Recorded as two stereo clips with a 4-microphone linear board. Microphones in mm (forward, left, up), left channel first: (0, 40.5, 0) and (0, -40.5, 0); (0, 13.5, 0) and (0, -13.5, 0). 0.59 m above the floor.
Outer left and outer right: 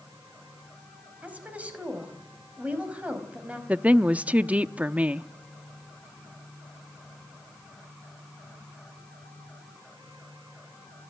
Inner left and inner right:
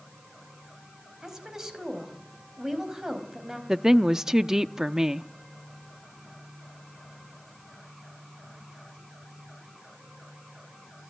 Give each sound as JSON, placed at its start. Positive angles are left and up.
{"t": 1.2, "sound": "a woman speaking", "side_deg": -20, "distance_m": 4.5}
{"t": 3.7, "sound": "a woman speaking", "side_deg": -20, "distance_m": 0.6}